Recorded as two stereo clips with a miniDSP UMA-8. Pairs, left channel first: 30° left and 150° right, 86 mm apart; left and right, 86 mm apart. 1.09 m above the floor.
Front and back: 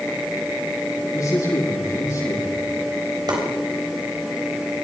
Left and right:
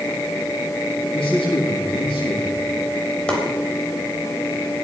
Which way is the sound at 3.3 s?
170° left.